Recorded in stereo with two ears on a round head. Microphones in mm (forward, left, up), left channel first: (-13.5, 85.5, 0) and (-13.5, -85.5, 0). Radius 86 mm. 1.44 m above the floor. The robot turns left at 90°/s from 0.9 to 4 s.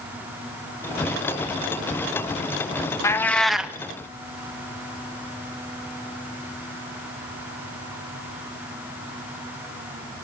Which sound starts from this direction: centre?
A cat meowing, at 3.0 s.